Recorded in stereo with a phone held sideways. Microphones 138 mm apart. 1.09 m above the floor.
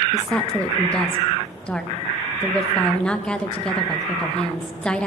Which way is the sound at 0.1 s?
5° left (ahead or behind).